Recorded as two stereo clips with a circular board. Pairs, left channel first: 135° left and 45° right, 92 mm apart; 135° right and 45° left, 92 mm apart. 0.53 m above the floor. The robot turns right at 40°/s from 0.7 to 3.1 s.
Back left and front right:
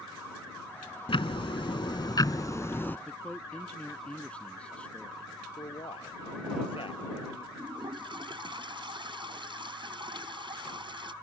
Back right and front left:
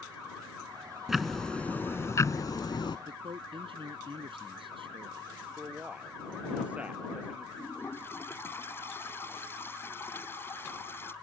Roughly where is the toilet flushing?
Right.